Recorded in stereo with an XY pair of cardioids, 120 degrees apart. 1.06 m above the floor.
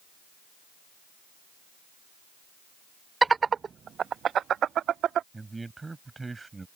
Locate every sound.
3.2 s laughter: 20° right; by 5.2 s 55° right
5.3 s a man speaking: 20° right